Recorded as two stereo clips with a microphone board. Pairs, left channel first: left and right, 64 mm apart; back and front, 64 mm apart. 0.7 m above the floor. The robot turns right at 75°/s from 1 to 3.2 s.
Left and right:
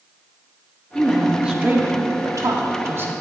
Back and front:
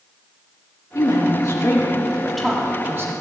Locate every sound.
0.9 s a woman speaking: 165° left, 1.5 m; by 3.1 s 35° right, 1.5 m